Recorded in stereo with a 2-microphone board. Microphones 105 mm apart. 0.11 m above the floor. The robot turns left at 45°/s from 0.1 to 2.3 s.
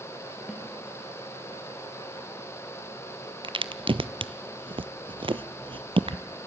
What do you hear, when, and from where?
0.5 s a snare drum: 5° right (ahead or behind), 2.5 m; by 0.6 s centre (ahead or behind), 2.5 m
3.4 s a crack: 55° right (ahead or behind), 0.6 m